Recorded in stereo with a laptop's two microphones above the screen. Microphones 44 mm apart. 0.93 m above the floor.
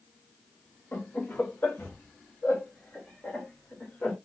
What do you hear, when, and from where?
0.9 s laughter: 60° left (ahead or behind), 1.4 m; by 4.2 s 40° left (ahead or behind), 2.5 m